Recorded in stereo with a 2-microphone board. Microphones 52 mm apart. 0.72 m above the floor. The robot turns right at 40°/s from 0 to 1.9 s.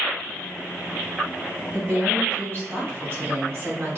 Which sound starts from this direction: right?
A woman speaking, at 1.7 s.